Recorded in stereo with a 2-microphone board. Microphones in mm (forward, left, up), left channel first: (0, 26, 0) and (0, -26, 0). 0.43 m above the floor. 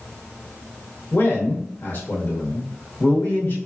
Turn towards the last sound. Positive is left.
turn(degrees=40)  # may be behind; listen again after turning